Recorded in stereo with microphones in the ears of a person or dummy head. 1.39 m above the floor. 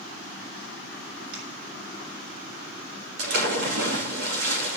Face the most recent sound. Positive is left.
turn(degrees=-55)  # may be behind; listen again after turning